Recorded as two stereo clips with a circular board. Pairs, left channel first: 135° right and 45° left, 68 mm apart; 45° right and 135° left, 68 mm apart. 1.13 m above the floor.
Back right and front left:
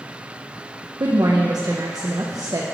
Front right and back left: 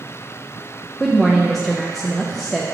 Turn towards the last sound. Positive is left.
turn(degrees=40)